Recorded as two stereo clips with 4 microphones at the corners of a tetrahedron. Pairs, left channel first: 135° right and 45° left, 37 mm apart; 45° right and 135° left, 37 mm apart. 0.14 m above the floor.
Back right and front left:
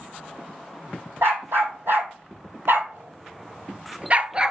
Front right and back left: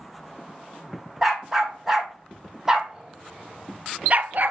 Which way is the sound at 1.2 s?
50° left.